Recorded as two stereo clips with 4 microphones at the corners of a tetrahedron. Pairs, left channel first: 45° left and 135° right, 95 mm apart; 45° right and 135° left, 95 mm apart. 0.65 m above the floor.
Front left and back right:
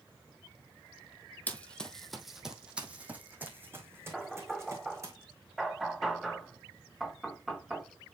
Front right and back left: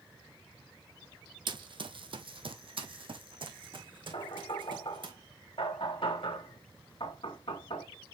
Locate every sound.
1.5 s running footsteps: 115° left, 1.1 m; by 5.1 s 165° left, 2.5 m
4.1 s knocking: 45° right, 1.9 m